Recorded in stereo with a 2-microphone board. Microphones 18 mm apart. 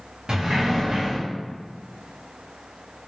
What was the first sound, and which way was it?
A sliding door, 45° right (ahead or behind).